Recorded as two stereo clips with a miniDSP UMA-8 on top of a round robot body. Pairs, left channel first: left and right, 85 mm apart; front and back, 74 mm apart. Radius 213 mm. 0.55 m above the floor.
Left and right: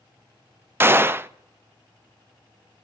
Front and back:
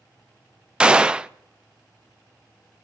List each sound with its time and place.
0.8 s a gunshot: 115° right, 0.5 m